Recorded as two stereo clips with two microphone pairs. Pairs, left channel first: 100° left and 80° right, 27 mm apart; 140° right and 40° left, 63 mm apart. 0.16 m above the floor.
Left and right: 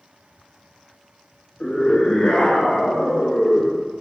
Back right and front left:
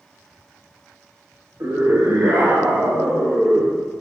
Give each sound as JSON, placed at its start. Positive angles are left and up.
{"t": 1.6, "sound": "a scream", "azimuth_deg": 60, "distance_m": 2.0}